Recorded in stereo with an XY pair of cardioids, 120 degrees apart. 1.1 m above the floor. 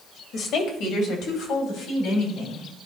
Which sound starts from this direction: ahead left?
A woman speaking, at 0.3 s.